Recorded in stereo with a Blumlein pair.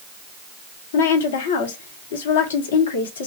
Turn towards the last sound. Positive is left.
turn(degrees=60)